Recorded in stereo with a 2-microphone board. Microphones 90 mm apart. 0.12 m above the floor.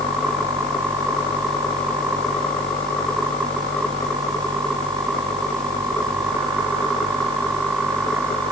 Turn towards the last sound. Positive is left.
No sound to turn to.